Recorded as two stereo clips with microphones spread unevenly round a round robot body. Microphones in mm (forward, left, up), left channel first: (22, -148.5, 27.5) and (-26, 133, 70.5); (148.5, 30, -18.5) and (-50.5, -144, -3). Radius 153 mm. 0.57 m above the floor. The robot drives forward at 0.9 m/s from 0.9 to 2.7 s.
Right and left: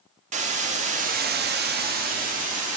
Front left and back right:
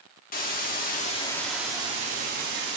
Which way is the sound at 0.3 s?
40° left.